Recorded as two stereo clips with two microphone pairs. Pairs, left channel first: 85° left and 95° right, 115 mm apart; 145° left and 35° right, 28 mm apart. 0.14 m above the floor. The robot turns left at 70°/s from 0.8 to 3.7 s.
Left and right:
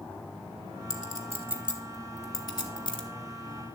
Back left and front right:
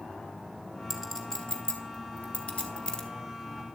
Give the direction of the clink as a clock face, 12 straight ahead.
4 o'clock.